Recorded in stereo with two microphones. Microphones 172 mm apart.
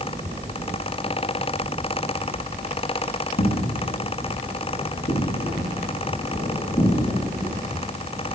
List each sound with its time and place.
3.4 s footsteps: 70° left (ahead or behind), 6.5 m; by 7.7 s 30° left (ahead or behind), 9 m